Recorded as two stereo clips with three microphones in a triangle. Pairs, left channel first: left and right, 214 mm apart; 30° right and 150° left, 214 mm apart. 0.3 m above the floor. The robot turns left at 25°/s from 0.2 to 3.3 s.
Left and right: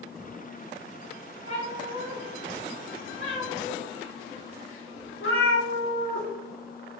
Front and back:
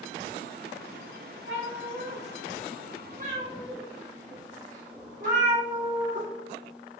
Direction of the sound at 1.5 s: 145° left.